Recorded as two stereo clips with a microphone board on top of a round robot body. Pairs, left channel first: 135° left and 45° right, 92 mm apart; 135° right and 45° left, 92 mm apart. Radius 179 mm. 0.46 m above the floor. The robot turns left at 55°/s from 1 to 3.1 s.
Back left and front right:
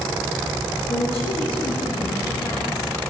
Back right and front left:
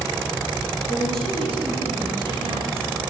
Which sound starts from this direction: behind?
A woman speaking, at 0.9 s.